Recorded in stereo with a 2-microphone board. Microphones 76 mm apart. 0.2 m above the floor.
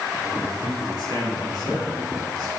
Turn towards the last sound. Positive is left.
turn(degrees=-75)  # may be behind; listen again after turning